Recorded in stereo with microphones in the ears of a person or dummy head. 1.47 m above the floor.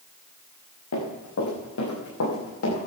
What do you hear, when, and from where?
0.9 s running footsteps: 80° left, 8 m